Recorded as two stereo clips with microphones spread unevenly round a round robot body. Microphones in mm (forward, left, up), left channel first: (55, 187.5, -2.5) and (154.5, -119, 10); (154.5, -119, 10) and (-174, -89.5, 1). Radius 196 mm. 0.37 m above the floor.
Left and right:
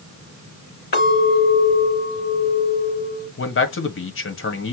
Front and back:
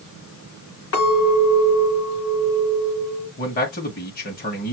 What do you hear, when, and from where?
0.9 s a clink: 50° left, 4.5 m
3.4 s a man speaking: 60° left, 1.7 m